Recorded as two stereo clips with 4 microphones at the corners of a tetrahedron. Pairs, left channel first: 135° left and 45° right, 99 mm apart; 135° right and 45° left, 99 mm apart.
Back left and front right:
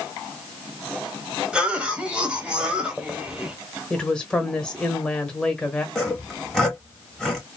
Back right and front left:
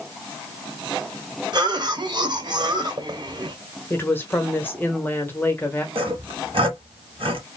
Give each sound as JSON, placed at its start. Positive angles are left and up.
{"t": 1.5, "sound": "a cough", "azimuth_deg": 35, "distance_m": 1.2}
{"t": 3.9, "sound": "a woman speaking", "azimuth_deg": -160, "distance_m": 1.0}
{"t": 6.0, "sound": "sawing", "azimuth_deg": 50, "distance_m": 1.5}